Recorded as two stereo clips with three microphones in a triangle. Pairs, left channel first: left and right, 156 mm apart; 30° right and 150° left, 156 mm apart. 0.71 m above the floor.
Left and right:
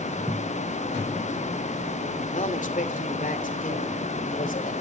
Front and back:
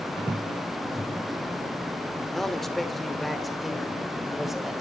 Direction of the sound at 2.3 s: 55° left.